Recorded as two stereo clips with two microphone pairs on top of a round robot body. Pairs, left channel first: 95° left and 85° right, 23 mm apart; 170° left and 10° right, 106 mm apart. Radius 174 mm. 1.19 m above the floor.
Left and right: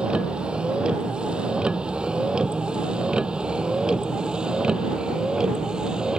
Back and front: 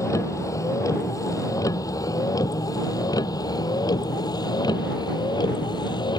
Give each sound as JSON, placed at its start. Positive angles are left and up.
{"t": 0.0, "sound": "a vehicle", "azimuth_deg": -125}